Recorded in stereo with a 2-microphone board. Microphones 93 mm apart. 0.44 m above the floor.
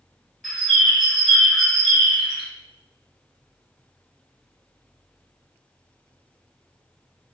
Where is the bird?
Centre (ahead or behind), 1.1 m.